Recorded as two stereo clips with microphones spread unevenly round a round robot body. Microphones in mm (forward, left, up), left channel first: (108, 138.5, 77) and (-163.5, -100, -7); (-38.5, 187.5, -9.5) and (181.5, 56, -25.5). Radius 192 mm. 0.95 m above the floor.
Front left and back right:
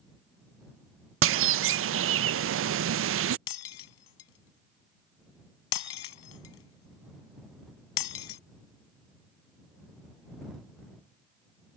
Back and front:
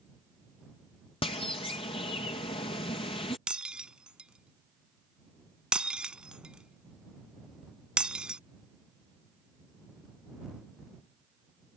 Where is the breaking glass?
55° left.